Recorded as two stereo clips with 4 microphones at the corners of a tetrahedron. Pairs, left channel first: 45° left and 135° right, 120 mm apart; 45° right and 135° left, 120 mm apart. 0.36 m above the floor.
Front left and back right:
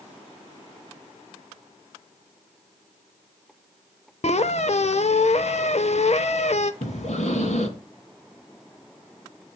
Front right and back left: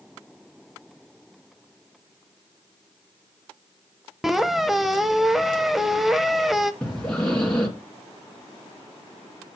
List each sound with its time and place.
4.2 s a squeak: 50° left, 0.6 m
6.8 s breathing: 35° left, 2.5 m